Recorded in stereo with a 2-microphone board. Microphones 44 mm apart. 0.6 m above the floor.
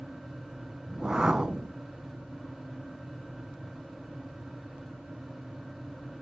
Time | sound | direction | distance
0.9 | a whoosh | 20° right (ahead or behind) | 0.7 m